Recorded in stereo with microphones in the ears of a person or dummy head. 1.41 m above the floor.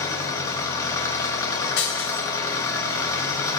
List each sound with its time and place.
0.0 s an engine running: 20° left (ahead or behind), 1.1 m
1.8 s breaking glass: 80° left, 5 m